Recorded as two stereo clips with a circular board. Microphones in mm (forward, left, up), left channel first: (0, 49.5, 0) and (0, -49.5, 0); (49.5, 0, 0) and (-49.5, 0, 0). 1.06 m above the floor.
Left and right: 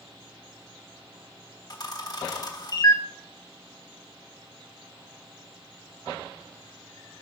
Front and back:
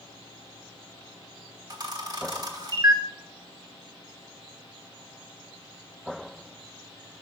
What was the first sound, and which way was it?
A camera shutter, 135° left.